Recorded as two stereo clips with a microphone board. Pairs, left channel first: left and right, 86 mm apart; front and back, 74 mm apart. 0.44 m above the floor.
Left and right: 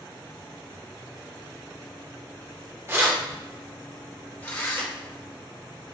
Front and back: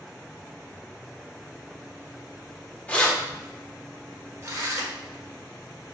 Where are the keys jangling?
55° right, 0.7 m; by 4.9 s 145° left, 1.1 m.